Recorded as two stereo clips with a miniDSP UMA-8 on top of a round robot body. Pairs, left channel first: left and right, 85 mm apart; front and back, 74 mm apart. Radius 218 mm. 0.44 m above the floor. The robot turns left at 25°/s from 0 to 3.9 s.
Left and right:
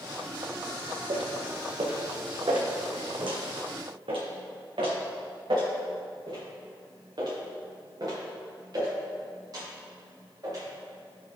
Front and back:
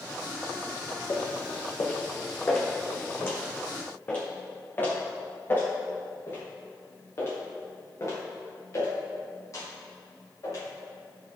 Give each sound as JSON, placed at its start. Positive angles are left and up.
{"t": 1.1, "sound": "footsteps", "azimuth_deg": -50, "distance_m": 1.5}